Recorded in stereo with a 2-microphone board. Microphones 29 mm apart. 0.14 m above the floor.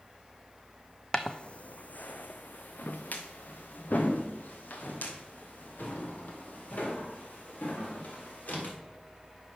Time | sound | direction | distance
1.1 | footsteps | 25° left (ahead or behind) | 0.6 m